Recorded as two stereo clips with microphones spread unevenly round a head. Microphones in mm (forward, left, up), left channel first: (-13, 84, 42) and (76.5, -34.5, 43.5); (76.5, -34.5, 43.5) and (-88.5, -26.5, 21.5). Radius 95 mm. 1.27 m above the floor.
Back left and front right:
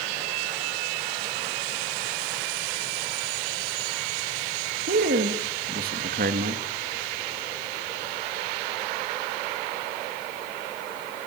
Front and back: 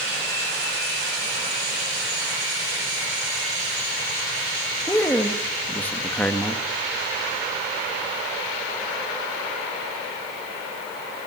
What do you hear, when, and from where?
4.9 s a man speaking: 85° right, 2.5 m